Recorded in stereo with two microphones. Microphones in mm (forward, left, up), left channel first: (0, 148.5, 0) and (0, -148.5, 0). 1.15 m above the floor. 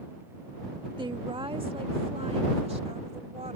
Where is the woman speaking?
15° right (ahead or behind); by 3.6 s 20° right (ahead or behind).